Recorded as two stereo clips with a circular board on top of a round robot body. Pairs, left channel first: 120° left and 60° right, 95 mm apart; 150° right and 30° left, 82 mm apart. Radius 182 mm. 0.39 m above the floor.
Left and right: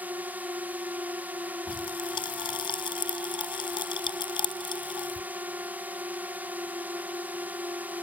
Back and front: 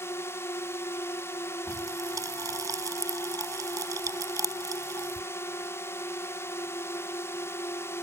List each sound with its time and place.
0.0 s a drone: 120° right
1.7 s a pop: 80° left